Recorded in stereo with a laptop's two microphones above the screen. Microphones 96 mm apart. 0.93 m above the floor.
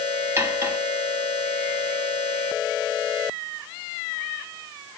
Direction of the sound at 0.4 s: 30° right (ahead or behind).